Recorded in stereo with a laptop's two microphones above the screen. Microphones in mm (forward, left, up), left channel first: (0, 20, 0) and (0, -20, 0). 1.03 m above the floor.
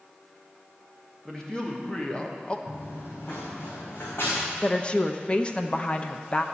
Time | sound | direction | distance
1.2 | a man speaking | 15° left (ahead or behind) | 1.8 m
2.7 | running footsteps | 65° left (ahead or behind) | 3 m
4.6 | a woman speaking | 25° left (ahead or behind) | 0.5 m